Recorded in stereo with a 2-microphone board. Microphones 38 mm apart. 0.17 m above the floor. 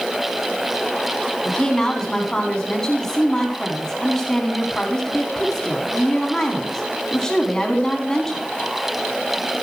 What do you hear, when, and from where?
1.4 s a woman speaking: 15° left (ahead or behind), 1.6 m